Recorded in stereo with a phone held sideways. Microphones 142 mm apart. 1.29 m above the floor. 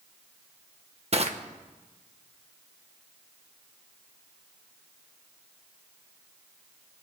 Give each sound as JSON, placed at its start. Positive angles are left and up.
{"t": 1.1, "sound": "crushing", "side_deg": -50, "distance_m": 1.1}